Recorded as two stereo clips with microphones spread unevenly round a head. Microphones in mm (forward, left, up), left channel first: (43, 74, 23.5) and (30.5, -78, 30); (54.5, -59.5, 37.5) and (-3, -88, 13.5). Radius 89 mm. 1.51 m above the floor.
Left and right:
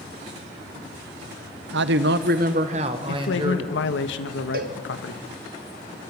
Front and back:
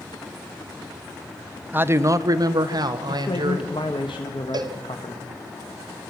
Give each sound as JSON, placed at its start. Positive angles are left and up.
{"t": 1.7, "sound": "a man speaking", "azimuth_deg": -95, "distance_m": 1.0}
{"t": 3.1, "sound": "a man speaking", "azimuth_deg": 85, "distance_m": 1.7}
{"t": 4.5, "sound": "a cowbell", "azimuth_deg": -140, "distance_m": 1.8}